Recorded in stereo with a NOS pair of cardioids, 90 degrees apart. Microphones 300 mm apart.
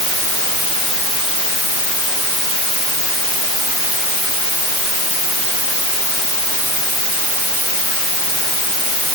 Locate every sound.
Only background noise.